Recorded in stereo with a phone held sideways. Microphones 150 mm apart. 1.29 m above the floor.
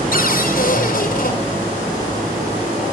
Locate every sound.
0.1 s a cupboard door: 75° left (ahead or behind), 5 m